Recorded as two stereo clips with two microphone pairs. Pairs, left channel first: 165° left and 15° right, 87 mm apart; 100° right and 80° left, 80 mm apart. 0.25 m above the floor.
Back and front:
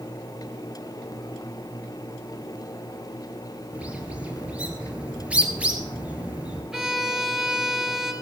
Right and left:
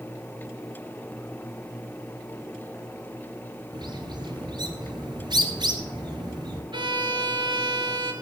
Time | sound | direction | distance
3.7 | a bird | 60° left | 1.4 m
6.7 | a violin | 70° left | 1.6 m